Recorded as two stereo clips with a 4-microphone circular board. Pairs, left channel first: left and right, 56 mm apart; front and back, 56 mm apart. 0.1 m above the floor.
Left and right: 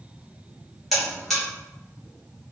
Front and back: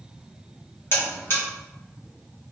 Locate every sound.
0.9 s a buzzer: 5° left, 1.5 m